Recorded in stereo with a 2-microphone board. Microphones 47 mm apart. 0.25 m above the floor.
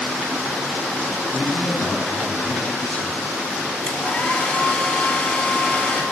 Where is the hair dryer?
25° left (ahead or behind), 1.1 m.